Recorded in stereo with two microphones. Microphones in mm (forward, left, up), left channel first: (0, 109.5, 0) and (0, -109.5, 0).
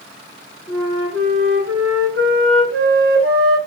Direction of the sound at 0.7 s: 75° right (ahead or behind).